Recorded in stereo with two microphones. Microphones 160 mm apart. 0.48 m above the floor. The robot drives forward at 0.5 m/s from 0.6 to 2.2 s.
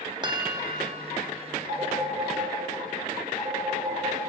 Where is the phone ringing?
55° right (ahead or behind), 2.5 m; by 4.2 s 50° right (ahead or behind), 3 m.